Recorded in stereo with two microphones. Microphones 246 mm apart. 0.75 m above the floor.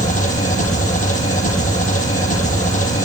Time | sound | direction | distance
0.0 | an engine running | 35° left (ahead or behind) | 7 m